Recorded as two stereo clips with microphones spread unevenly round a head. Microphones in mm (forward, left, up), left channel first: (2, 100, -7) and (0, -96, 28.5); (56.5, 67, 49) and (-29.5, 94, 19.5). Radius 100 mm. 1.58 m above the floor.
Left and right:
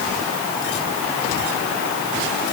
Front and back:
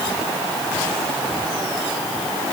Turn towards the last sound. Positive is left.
No sound to turn to.